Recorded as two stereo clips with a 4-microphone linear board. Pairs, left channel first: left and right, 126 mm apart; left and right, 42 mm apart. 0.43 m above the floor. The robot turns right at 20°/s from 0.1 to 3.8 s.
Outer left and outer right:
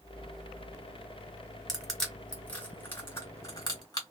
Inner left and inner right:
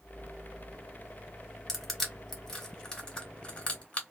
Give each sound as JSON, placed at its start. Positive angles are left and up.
{"t": 1.7, "sound": "crushing", "side_deg": 0, "distance_m": 1.8}